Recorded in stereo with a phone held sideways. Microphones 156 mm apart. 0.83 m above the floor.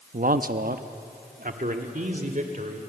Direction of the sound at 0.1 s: 60° right (ahead or behind).